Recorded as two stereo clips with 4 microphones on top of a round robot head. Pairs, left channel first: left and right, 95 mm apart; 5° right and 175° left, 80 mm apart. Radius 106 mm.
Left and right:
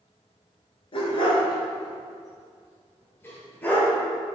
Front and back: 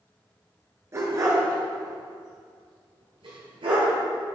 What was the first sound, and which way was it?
A dog barking, 120° left.